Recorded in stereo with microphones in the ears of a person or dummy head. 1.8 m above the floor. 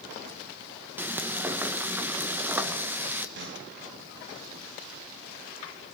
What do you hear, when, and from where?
1.0 s frying: 5° right (ahead or behind), 1.2 m
3.4 s a snare drum: 65° right (ahead or behind), 4.5 m